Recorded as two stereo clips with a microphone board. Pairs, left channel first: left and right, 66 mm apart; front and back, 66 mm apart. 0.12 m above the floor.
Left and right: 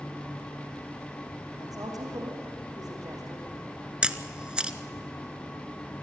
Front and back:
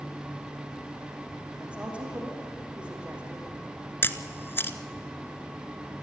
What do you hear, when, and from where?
1.6 s a woman speaking: 105° right, 6 m
4.0 s a camera shutter: 25° right, 0.9 m